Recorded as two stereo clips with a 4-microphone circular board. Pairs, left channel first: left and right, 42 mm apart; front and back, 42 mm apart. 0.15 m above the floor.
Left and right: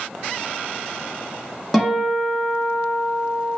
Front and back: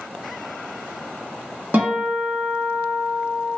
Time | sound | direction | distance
1.7 | a guitar | 175° left | 1.4 m